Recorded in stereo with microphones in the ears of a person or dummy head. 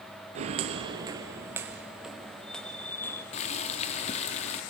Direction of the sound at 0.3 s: 35° right (ahead or behind).